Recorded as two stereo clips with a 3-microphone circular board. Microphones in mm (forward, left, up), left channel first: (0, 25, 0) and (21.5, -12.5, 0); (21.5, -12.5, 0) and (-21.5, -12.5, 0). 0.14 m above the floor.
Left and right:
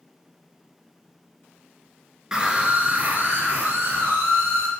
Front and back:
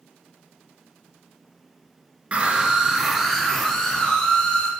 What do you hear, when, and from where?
2.3 s a scream: 130° right, 1.8 m; by 4.7 s 70° right, 4 m